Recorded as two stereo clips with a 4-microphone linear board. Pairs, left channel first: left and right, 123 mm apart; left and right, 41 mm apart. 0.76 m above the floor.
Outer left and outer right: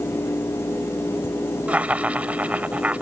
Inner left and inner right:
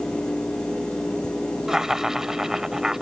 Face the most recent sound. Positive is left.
turn(degrees=-10)  # may be behind; listen again after turning